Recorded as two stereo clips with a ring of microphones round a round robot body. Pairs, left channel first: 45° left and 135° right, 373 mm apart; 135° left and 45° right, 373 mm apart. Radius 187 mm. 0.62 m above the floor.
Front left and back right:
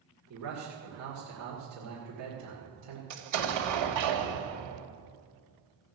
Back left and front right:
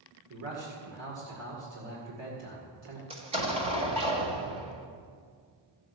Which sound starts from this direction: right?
A man speaking, at 0.3 s.